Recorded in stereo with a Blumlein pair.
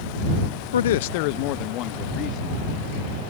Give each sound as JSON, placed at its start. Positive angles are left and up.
{"t": 0.7, "sound": "a man speaking", "azimuth_deg": 65}